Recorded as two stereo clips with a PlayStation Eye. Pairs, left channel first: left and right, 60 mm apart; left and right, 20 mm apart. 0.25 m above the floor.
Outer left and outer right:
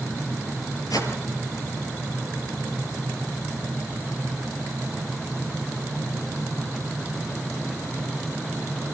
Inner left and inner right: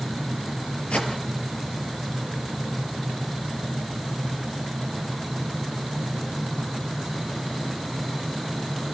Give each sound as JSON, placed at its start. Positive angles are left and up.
{"t": 0.9, "sound": "a whoosh", "side_deg": 80, "distance_m": 4.0}